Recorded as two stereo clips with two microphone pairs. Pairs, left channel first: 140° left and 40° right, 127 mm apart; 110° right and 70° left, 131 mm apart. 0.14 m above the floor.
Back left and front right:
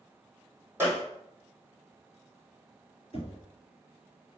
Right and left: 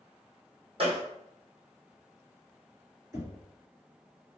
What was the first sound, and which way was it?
A gunshot, 35° left.